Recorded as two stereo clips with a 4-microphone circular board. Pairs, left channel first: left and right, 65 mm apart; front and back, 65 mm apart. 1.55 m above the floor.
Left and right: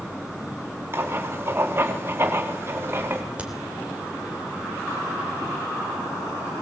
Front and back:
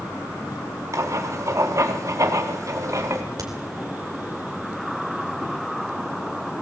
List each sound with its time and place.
0.9 s writing: 145° right, 2 m
3.4 s a crack: 160° right, 3.5 m